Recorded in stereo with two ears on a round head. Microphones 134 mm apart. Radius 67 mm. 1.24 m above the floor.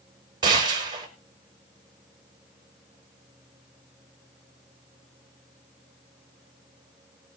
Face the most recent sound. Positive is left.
turn(degrees=-30)  # may be behind; listen again after turning